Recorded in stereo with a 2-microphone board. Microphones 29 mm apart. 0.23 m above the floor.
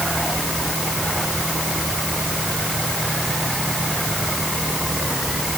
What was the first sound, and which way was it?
Only background noise.